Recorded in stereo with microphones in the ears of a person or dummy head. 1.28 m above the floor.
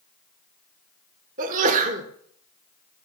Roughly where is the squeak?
I don't hear a squeak.